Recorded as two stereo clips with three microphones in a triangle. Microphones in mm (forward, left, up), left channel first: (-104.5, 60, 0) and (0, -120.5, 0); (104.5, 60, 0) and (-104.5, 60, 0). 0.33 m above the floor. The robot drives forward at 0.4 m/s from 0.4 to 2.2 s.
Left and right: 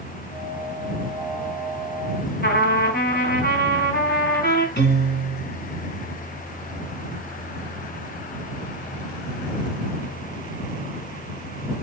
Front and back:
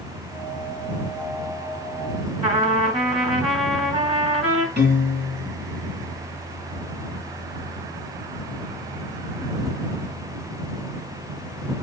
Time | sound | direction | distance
2.4 | a trumpet | 125° left | 2.5 m
4.8 | a piano | 150° left | 3 m